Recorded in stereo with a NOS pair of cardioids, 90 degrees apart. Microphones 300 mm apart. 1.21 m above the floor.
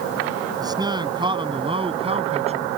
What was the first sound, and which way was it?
A man speaking, 15° right.